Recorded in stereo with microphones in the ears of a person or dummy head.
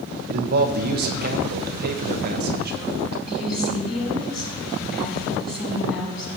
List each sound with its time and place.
0.3 s a man speaking: 50° right (ahead or behind), 1.0 m
3.3 s a woman speaking: centre (ahead or behind), 4.5 m